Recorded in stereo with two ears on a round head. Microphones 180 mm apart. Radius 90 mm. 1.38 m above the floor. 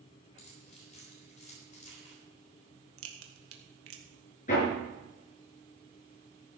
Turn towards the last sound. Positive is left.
turn(degrees=40)  # may be behind; listen again after turning